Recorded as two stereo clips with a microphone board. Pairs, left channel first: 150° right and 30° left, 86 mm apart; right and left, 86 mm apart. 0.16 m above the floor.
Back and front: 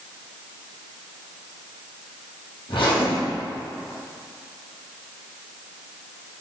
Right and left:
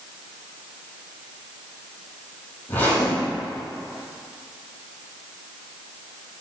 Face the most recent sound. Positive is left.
turn(degrees=-160)